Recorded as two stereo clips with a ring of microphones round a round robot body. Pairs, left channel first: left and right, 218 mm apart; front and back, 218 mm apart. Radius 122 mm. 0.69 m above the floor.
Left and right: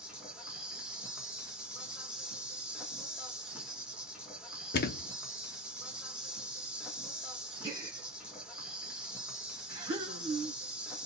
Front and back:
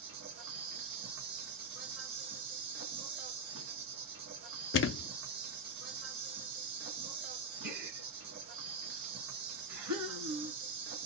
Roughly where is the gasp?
Behind.